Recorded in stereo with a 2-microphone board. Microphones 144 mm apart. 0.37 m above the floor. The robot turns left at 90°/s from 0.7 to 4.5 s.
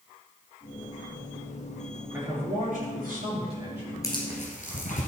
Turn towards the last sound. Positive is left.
turn(degrees=65)  # may be behind; listen again after turning